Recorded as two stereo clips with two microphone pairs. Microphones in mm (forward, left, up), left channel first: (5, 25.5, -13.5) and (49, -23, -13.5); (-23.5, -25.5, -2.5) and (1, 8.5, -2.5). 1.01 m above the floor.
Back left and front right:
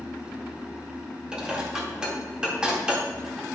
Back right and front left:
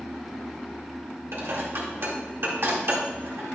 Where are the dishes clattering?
30° left, 1.9 m.